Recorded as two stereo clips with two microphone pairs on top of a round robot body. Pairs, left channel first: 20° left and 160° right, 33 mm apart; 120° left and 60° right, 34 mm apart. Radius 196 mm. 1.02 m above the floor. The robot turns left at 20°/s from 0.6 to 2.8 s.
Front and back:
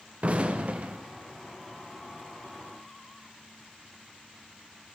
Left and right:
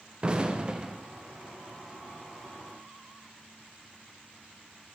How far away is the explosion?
About 0.8 m.